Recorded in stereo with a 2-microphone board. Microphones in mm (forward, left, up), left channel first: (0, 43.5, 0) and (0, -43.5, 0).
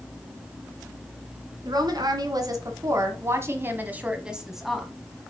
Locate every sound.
1.6 s a woman speaking: 60° right (ahead or behind), 1.8 m; by 4.9 s 5° left (ahead or behind), 1.3 m